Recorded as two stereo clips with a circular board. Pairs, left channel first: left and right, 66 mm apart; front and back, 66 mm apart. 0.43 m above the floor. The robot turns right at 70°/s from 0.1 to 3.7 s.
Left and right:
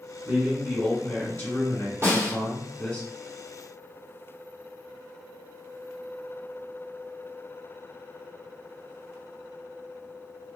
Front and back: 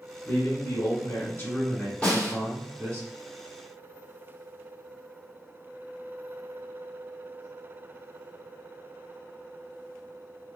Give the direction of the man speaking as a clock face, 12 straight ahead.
1 o'clock.